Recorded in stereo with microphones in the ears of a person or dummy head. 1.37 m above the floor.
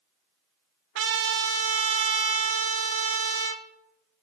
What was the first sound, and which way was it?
A trumpet, 85° right.